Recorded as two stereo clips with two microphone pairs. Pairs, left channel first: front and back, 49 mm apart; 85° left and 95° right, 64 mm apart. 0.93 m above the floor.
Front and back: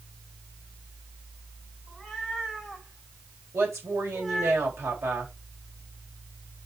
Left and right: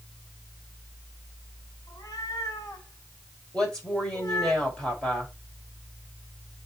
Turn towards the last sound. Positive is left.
turn(degrees=165)